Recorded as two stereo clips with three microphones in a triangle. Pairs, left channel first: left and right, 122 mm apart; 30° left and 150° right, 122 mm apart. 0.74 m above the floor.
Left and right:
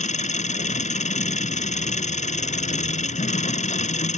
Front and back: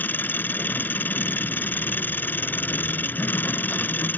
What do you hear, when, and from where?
0.0 s an engine running: 105° left